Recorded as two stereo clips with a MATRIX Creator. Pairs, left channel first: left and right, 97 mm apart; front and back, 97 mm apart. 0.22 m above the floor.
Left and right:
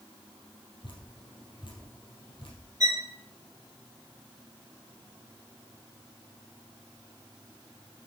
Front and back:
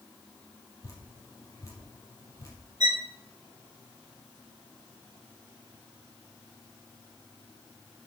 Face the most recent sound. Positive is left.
turn(degrees=-140)